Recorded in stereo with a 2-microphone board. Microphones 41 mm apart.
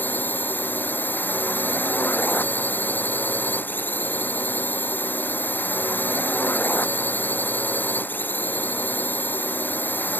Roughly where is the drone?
Left.